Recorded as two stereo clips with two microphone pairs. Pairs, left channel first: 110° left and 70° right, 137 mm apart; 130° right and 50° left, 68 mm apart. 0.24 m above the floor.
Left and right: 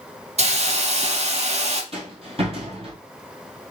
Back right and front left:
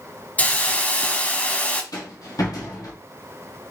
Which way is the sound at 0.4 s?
70° right.